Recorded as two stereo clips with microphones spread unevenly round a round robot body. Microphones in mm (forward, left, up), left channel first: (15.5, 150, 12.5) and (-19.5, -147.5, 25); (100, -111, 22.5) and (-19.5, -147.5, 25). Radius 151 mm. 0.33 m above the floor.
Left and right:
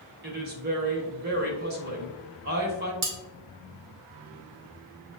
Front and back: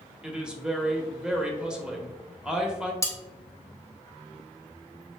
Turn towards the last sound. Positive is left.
turn(degrees=-50)